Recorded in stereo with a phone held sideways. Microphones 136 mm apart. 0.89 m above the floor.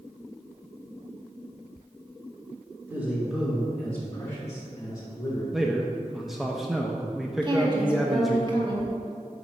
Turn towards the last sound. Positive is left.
turn(degrees=-35)  # may be behind; listen again after turning